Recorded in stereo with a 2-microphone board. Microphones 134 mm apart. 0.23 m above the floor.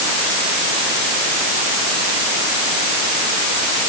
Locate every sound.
Only background noise.